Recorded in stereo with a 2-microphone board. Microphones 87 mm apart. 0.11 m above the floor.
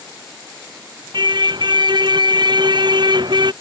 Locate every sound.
1.1 s a car horn: 60° right (ahead or behind)